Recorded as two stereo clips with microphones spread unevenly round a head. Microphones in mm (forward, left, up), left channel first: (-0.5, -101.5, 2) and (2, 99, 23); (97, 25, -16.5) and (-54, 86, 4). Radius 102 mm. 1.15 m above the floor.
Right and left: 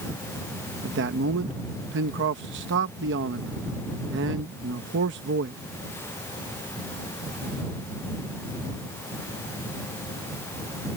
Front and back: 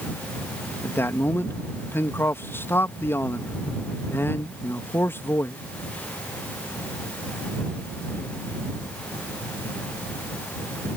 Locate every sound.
0.8 s a man speaking: 55° left